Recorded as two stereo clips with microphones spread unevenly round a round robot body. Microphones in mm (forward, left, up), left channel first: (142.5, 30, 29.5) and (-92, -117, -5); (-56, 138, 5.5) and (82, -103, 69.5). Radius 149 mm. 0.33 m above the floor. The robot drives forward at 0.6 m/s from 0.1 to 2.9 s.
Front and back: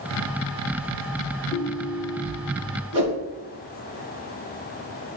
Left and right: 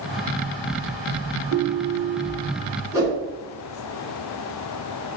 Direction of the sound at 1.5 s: 35° right.